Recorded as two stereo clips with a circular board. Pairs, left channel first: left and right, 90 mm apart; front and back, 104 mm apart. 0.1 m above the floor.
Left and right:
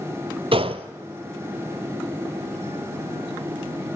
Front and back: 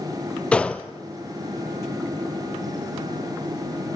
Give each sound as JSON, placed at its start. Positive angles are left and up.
{"t": 0.5, "sound": "a gunshot", "azimuth_deg": -80, "distance_m": 0.6}